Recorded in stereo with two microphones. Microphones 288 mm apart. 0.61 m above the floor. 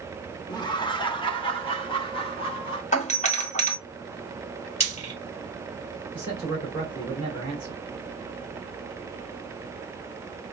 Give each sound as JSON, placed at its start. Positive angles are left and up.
{"t": 0.5, "sound": "laughter", "side_deg": 15, "distance_m": 0.9}
{"t": 2.9, "sound": "a doorbell", "side_deg": 25, "distance_m": 1.1}
{"t": 4.8, "sound": "frying", "side_deg": 20, "distance_m": 2.5}
{"t": 6.1, "sound": "a man speaking", "side_deg": 15, "distance_m": 2.0}